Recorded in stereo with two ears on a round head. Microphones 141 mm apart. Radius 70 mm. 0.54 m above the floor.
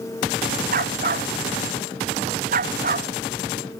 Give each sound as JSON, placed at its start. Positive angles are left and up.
{"t": 0.7, "sound": "a dog barking", "side_deg": -55}